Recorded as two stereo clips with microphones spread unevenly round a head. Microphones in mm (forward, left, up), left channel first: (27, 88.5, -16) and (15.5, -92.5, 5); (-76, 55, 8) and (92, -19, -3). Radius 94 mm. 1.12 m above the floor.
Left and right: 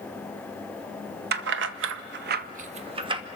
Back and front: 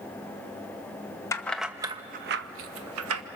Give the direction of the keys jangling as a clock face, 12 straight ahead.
4 o'clock.